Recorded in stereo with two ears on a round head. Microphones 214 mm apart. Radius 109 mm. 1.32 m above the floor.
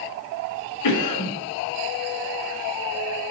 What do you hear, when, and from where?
0.8 s a cough: 85° left, 1.5 m